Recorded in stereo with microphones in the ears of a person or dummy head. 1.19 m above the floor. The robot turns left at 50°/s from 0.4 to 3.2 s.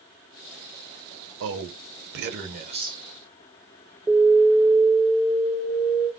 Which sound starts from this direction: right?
A man speaking, at 1.4 s.